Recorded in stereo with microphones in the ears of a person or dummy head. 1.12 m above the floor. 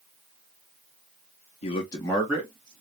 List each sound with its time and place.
1.6 s a man speaking: 35° left (ahead or behind), 0.7 m; by 2.8 s 25° right (ahead or behind), 0.8 m